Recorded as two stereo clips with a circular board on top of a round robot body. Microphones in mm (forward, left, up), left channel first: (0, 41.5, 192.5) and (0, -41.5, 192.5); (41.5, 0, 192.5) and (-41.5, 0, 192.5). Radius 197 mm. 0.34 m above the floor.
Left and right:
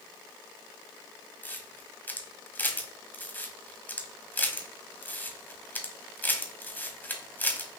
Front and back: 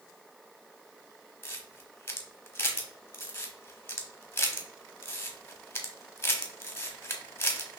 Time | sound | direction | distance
1.4 | a camera shutter | 40° left | 1.2 m